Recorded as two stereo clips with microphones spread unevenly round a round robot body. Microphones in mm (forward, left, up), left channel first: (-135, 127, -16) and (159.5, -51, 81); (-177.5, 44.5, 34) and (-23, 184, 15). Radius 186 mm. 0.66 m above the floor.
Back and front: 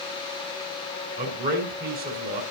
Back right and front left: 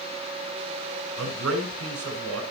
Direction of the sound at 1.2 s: 35° left.